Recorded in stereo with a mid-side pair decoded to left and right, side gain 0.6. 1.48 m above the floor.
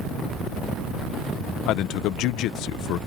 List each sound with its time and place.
1.7 s a man speaking: 65° left